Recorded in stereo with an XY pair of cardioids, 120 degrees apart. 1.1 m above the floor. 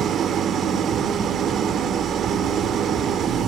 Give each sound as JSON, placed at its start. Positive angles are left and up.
{"t": 0.0, "sound": "an engine running", "azimuth_deg": -55, "distance_m": 1.7}